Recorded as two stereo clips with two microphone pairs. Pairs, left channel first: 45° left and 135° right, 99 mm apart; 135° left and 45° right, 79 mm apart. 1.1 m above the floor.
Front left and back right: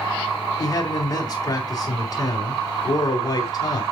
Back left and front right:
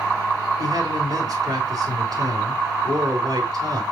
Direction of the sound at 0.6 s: 10° right.